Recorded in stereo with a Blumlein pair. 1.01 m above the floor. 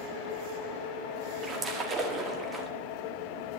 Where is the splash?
20° right, 1.6 m.